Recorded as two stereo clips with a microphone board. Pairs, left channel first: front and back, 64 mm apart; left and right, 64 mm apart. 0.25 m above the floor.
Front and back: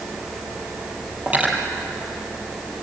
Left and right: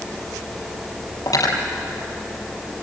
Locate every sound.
1.3 s cutlery clinking: 110° left, 4 m